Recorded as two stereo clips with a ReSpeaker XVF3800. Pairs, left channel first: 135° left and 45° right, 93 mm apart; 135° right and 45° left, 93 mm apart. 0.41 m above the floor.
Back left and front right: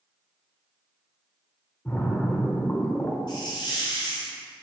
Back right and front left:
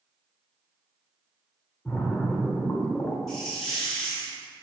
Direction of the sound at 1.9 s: 175° right.